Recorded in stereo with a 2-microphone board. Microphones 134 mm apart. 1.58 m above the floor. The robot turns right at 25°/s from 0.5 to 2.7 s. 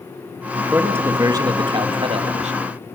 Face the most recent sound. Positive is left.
turn(degrees=-115)